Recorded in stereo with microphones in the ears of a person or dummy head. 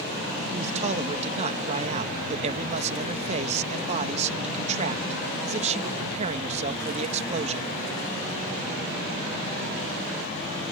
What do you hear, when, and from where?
0.5 s a man speaking: 35° right (ahead or behind)